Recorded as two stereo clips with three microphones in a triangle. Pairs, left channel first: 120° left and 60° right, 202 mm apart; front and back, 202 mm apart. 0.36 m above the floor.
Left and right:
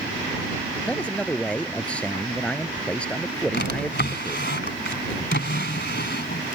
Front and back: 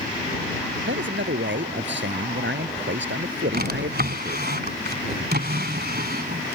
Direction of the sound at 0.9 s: 155° right.